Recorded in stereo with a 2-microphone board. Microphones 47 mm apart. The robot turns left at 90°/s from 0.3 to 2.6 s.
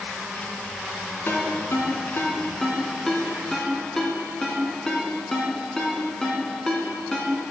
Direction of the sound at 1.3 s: 50° left (ahead or behind).